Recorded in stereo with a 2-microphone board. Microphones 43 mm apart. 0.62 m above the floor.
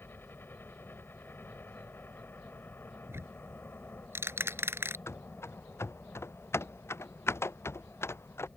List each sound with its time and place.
0.0 s a helicopter: 55° left (ahead or behind)
3.1 s ticking: 70° right (ahead or behind)
5.1 s running footsteps: 85° left; by 8.5 s 80° left